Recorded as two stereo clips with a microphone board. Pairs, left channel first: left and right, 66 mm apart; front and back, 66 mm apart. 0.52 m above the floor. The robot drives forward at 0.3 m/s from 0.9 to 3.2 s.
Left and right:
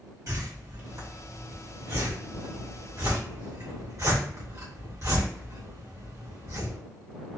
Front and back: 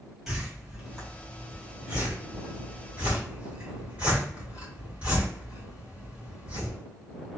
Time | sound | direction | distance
0.3 | a whoosh | 95° right | 1.8 m